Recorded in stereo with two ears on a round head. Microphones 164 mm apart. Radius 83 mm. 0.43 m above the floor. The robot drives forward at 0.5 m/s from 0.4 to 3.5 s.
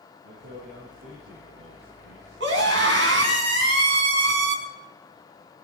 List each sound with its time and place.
0.2 s a man speaking: 75° right (ahead or behind), 8 m; by 3.4 s 70° right (ahead or behind), 8.5 m
2.4 s a scream: 70° right (ahead or behind), 5 m